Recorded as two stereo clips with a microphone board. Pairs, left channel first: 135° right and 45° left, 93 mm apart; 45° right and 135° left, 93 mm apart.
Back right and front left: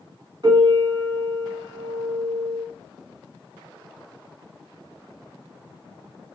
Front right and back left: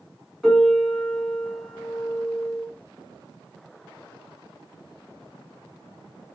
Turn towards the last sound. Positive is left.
turn(degrees=40)